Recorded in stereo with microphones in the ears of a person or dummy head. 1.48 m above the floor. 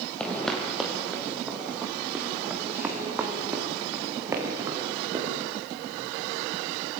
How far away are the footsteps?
About 3 m.